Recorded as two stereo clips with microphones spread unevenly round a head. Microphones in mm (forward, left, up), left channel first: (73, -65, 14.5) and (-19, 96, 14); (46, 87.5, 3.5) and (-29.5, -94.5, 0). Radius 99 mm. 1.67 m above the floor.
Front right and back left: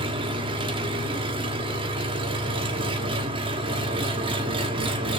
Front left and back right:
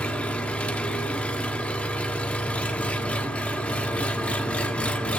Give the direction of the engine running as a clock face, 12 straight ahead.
7 o'clock.